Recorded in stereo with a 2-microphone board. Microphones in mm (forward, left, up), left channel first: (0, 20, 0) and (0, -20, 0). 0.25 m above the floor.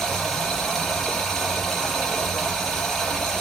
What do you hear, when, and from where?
0.0 s running water: 5° left (ahead or behind), 3.5 m